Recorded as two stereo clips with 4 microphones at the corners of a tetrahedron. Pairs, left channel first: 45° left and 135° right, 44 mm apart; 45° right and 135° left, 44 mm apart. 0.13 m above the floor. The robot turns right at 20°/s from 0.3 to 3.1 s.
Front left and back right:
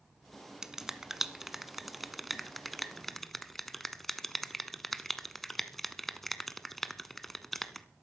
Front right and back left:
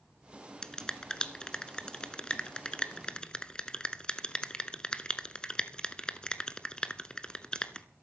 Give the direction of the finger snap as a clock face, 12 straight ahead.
3 o'clock.